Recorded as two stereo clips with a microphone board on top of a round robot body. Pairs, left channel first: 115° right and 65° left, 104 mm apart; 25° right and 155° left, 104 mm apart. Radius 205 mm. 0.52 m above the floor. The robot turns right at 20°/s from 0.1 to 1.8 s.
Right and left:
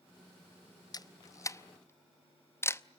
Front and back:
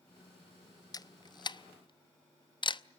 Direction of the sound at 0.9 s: 70° right.